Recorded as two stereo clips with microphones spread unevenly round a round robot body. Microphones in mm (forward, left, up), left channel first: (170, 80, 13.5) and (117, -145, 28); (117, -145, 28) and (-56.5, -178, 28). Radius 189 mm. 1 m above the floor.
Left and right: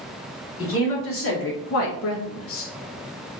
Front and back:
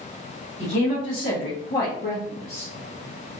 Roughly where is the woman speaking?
Ahead left.